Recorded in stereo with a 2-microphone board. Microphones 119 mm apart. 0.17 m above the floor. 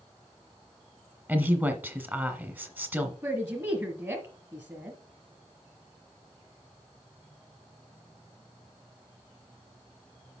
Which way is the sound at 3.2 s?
25° right (ahead or behind).